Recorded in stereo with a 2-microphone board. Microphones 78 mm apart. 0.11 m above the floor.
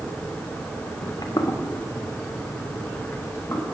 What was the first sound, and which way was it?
Footsteps, 60° left (ahead or behind).